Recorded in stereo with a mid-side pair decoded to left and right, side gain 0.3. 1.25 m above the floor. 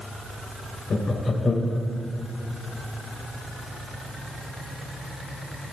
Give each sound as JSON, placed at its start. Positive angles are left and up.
{"t": 0.9, "sound": "laughter", "azimuth_deg": 50, "distance_m": 0.9}